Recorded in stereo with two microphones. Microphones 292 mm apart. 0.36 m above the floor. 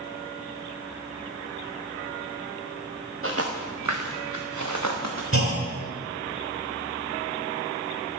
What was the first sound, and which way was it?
Footsteps, 45° right (ahead or behind).